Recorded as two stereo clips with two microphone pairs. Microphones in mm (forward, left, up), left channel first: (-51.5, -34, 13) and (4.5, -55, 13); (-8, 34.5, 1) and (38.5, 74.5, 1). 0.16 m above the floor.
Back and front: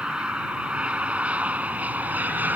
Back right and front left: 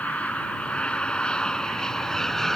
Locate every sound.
0.0 s an aircraft: 85° right; by 2.6 s 55° right